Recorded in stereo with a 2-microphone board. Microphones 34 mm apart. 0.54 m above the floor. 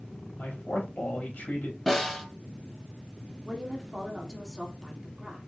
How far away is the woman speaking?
About 1.4 m.